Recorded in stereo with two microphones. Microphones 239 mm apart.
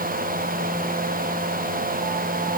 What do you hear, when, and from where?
Only background noise.